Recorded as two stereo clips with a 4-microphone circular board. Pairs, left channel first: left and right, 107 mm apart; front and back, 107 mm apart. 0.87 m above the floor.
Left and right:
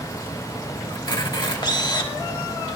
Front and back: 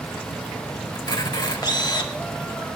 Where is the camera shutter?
45° left, 1.9 m.